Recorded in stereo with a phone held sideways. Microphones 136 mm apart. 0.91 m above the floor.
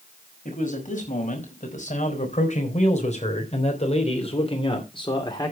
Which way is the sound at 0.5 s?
70° left (ahead or behind).